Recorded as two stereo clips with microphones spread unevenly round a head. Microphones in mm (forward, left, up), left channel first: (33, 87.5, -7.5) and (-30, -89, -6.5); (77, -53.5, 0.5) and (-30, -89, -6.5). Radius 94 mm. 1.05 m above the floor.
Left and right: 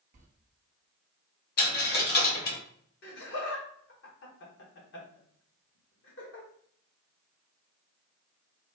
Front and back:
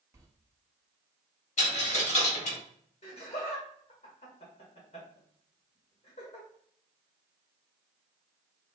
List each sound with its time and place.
0.1 s a sliding door: 110° right, 0.7 m
1.6 s a dropped coin: 35° left, 1.0 m
3.0 s laughter: 60° left, 1.4 m